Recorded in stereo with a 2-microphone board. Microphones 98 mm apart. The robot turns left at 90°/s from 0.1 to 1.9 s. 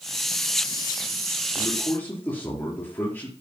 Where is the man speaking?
50° left, 4.5 m; by 3.3 s 20° left, 4.5 m.